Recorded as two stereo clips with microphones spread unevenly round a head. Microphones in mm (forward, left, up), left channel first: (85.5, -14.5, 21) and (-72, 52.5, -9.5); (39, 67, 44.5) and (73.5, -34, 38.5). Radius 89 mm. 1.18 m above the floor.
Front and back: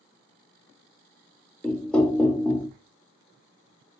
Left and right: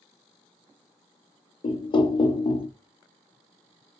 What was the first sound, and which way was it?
Knocking, 65° left.